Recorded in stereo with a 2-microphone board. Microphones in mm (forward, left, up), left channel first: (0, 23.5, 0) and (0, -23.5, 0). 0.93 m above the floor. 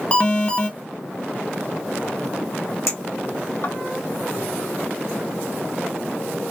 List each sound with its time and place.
0.1 s an alarm: 30° left (ahead or behind), 0.9 m
2.9 s a clink: 75° left (ahead or behind), 1.9 m